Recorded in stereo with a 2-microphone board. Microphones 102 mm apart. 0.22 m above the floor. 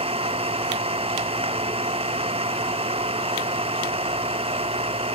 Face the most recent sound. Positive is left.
turn(degrees=-75)  # may be behind; listen again after turning